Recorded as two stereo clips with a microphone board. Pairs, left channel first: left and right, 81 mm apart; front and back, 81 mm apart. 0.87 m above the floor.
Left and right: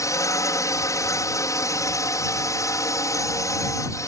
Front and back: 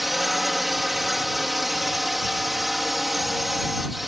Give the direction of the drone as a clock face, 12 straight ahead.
9 o'clock.